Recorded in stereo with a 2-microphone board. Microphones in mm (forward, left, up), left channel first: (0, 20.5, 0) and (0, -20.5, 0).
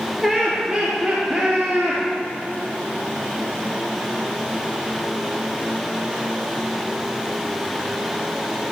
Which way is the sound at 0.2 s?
Centre (ahead or behind).